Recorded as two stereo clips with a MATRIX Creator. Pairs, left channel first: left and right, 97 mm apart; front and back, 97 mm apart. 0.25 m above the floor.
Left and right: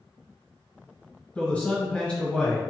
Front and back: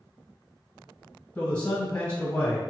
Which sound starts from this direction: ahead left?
A man speaking, at 1.4 s.